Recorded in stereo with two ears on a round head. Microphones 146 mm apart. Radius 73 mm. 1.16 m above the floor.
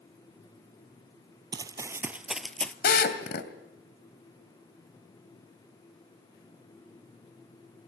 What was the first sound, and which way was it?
Running footsteps, 25° right (ahead or behind).